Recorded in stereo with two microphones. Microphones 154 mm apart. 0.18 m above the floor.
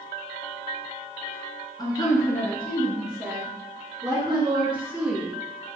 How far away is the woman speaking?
About 1.8 m.